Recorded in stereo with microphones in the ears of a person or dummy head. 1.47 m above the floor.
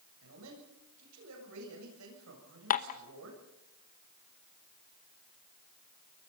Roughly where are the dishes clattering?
Left.